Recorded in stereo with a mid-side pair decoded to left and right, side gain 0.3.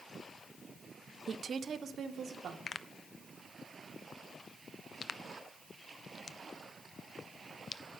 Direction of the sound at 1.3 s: 60° right.